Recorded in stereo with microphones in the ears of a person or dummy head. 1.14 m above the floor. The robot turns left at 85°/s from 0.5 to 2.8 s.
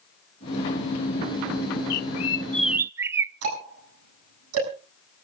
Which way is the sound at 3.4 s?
85° right.